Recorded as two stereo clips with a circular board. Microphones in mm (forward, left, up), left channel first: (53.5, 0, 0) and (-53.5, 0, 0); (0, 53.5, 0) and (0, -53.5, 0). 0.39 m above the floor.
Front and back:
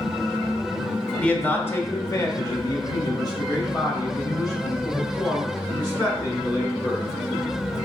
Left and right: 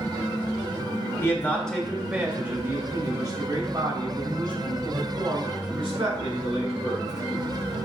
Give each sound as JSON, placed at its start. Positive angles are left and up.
{"t": 1.2, "sound": "a man speaking", "azimuth_deg": 65, "distance_m": 0.8}